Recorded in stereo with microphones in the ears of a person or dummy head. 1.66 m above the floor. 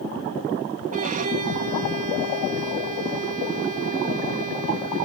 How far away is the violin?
About 1.9 m.